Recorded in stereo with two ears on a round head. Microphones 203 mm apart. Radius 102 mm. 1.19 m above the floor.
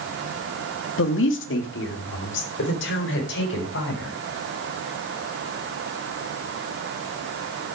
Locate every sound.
1.0 s a woman speaking: 60° left (ahead or behind), 1.7 m; by 4.1 s 55° left (ahead or behind), 6 m